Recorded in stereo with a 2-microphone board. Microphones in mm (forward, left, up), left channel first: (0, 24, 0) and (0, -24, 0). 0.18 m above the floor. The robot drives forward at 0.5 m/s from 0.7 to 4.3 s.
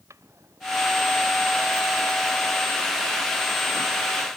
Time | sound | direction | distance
0.1 | a drawer | 80° right | ?